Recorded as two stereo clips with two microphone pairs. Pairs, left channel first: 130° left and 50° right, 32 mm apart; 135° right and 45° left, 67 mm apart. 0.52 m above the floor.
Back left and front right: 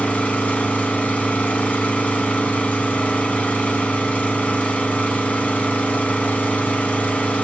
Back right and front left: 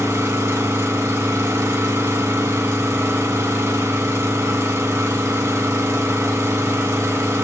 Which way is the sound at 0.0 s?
85° left.